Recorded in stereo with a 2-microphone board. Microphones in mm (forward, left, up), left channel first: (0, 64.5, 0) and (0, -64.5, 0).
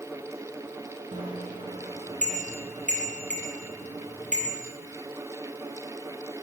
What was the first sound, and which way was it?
A bicycle bell, 80° right.